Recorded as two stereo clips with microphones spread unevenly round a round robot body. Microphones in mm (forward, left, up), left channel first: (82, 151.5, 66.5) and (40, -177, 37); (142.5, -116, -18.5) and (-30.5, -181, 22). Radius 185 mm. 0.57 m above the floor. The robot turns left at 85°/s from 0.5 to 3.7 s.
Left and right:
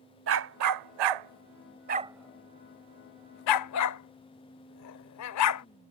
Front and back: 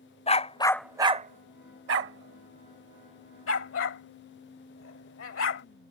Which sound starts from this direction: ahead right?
A dog barking, at 0.3 s.